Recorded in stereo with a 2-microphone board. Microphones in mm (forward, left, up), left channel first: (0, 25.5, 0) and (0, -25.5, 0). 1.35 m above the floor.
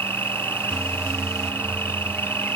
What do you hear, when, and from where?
0.0 s an insect: 45° left (ahead or behind)